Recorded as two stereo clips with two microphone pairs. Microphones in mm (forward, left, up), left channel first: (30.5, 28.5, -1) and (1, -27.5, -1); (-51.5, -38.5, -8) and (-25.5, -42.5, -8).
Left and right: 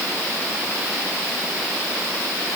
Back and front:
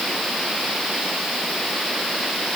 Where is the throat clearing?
No throat clearing in this recording.